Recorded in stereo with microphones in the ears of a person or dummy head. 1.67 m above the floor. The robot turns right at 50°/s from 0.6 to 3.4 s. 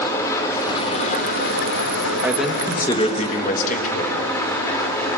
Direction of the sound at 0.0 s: 20° left.